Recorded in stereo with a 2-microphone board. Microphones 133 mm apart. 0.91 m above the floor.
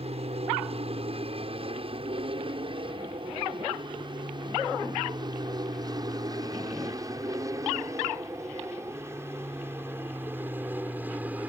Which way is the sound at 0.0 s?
50° right (ahead or behind).